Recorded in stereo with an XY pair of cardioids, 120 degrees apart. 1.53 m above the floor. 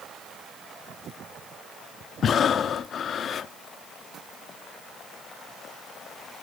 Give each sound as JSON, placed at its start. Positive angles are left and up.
{"t": 2.2, "sound": "breathing", "azimuth_deg": 45, "distance_m": 0.5}